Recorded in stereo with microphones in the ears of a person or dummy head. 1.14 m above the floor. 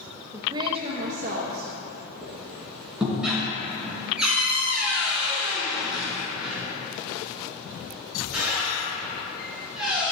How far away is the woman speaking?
About 0.6 m.